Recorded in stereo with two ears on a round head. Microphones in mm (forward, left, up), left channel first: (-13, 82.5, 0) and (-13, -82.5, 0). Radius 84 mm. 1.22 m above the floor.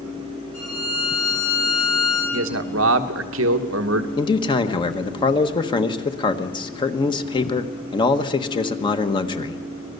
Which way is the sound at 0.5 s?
55° left (ahead or behind).